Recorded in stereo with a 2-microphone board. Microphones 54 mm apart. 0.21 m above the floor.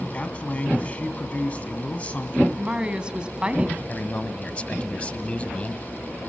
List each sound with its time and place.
0.1 s a man speaking: 25° left (ahead or behind), 1.9 m
2.6 s a woman speaking: 20° right (ahead or behind), 1.3 m
3.9 s a man speaking: 25° left (ahead or behind), 1.1 m